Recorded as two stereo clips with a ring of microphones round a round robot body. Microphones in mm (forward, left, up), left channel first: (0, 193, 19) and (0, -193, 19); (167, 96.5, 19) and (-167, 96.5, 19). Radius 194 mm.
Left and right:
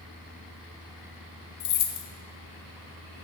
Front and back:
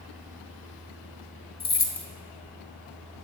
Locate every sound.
1.6 s keys jangling: 65° left, 1.0 m